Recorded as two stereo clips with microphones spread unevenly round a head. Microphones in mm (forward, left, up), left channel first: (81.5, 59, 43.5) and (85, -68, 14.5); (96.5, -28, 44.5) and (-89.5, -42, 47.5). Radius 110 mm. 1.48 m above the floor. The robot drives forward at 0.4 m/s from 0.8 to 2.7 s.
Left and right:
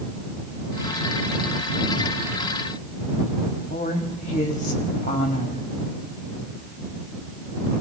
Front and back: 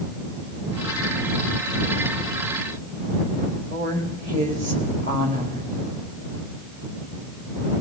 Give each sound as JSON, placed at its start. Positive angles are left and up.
{"t": 3.7, "sound": "a woman speaking", "azimuth_deg": 135, "distance_m": 2.5}